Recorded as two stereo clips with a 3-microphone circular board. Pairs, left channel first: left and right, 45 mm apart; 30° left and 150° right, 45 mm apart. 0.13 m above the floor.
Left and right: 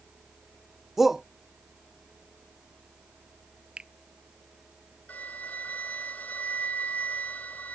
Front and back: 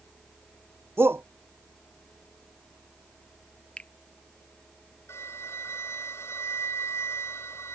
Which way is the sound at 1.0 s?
175° right.